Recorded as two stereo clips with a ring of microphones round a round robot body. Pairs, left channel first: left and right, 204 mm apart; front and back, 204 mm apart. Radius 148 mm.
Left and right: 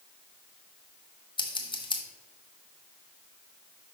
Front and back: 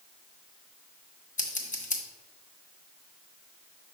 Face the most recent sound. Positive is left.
turn(degrees=35)